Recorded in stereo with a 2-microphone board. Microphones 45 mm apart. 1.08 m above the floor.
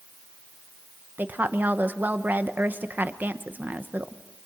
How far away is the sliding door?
I don't hear a sliding door.